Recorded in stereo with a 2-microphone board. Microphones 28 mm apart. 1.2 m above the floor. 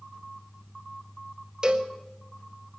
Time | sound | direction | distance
1.6 | a cowbell | 30° right (ahead or behind) | 1.6 m